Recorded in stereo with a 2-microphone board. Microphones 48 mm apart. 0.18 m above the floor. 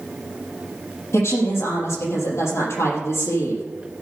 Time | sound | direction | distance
1.1 | a woman speaking | 65° left (ahead or behind) | 5.5 m